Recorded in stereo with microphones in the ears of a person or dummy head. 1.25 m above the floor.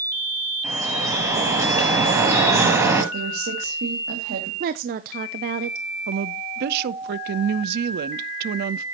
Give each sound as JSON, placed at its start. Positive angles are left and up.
{"t": 0.6, "sound": "dripping", "side_deg": -15, "distance_m": 8.0}
{"t": 3.1, "sound": "a woman speaking", "side_deg": -65, "distance_m": 2.5}
{"t": 4.6, "sound": "a woman speaking", "side_deg": -50, "distance_m": 0.6}
{"t": 6.1, "sound": "a woman speaking", "side_deg": -60, "distance_m": 0.6}